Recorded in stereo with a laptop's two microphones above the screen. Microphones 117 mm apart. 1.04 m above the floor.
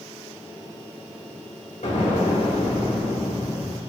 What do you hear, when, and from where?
1.8 s an explosion: 80° left, 2 m